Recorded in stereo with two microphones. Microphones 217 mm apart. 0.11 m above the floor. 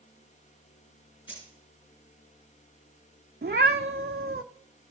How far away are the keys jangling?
About 7 m.